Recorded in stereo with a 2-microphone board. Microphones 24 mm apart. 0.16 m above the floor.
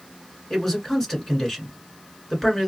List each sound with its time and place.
0.5 s a man speaking: 20° left (ahead or behind), 1.7 m